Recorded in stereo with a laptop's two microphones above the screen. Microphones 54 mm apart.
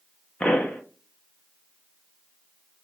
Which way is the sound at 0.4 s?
25° left (ahead or behind).